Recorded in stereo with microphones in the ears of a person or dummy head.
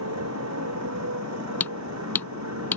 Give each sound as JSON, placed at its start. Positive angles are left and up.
{"t": 0.0, "sound": "a motorcycle", "side_deg": -90}
{"t": 1.6, "sound": "hammering", "side_deg": 5}